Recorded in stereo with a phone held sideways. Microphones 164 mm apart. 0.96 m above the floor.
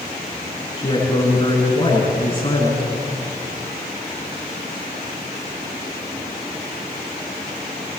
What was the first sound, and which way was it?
A woman speaking, 35° left (ahead or behind).